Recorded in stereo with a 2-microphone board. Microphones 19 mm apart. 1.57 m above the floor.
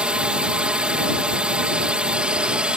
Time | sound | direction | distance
0.0 | a drone | 60° right (ahead or behind) | ?